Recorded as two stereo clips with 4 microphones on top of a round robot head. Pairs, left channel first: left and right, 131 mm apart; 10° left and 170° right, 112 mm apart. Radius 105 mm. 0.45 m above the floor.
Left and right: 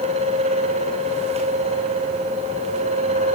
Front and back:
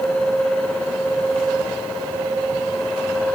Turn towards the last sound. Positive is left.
No sound to turn to.